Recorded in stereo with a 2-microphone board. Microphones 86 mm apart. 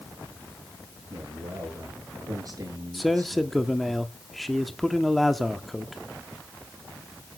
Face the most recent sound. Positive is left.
turn(degrees=0)  # may be behind; listen again after turning